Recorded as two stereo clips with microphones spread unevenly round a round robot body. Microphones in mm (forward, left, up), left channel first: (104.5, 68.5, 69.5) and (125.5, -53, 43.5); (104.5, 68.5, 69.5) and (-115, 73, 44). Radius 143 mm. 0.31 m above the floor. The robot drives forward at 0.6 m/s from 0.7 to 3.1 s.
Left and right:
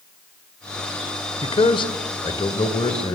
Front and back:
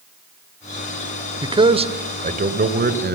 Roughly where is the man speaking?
Behind left.